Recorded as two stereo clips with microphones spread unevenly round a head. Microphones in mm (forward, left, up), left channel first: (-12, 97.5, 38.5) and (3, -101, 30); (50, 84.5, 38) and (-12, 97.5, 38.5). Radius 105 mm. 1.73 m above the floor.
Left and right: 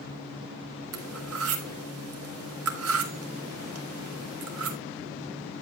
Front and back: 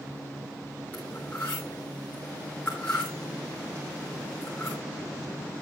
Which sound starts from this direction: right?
Cutlery clinking, at 0.9 s.